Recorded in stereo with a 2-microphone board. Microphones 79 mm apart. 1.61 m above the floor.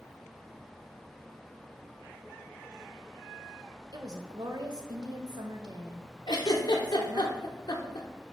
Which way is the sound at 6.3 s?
65° left (ahead or behind).